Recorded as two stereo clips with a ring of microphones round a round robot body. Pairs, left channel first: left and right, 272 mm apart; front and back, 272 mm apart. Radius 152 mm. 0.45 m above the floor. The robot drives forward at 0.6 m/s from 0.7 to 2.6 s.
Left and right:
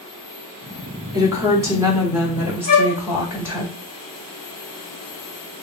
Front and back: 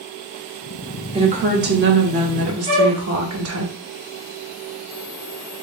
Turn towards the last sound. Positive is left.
turn(degrees=-155)